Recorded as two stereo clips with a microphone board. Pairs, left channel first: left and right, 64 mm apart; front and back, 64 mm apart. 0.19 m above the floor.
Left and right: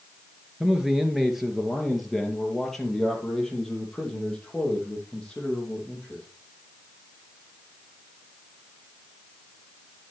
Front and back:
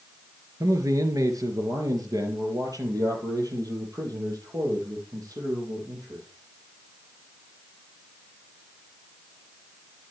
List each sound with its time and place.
0.6 s a man speaking: 170° right, 2.5 m; by 6.2 s 165° left, 6.5 m